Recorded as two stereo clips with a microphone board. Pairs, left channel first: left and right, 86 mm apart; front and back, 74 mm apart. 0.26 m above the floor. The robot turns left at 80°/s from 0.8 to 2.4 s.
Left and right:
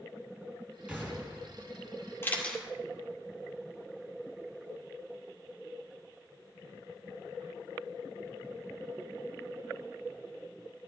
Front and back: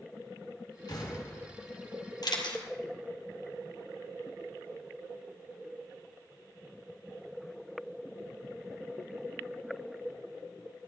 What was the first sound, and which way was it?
An explosion, 15° right.